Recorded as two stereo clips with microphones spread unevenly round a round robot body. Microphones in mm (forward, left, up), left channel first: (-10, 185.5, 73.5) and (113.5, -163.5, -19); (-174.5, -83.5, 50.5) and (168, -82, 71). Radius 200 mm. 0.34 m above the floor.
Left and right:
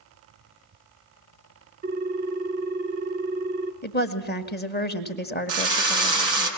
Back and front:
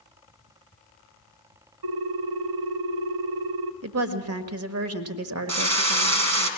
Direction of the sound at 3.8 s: 40° left.